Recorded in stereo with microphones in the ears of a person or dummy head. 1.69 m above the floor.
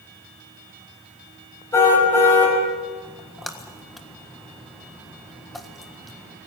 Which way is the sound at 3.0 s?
Centre (ahead or behind).